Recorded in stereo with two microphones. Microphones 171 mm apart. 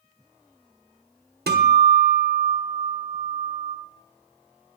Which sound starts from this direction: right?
A guitar, at 1.5 s.